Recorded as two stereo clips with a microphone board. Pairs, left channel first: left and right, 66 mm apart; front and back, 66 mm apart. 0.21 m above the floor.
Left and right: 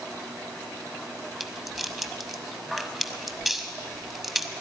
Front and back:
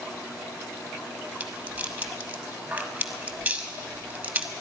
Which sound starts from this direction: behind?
A rattle, at 1.4 s.